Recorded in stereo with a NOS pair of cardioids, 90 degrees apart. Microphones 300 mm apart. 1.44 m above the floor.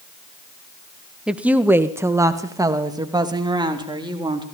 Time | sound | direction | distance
1.3 | a woman speaking | 5° right | 1.3 m